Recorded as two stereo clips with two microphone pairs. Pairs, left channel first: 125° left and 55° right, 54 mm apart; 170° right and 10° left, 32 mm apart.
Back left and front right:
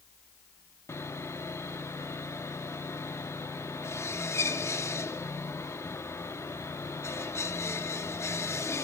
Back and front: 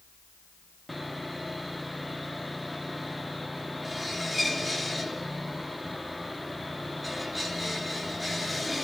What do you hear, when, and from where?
0.9 s sawing: 95° left, 1.2 m